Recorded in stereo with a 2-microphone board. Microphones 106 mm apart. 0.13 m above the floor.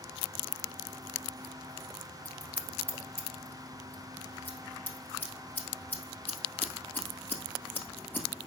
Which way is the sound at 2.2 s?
20° left (ahead or behind).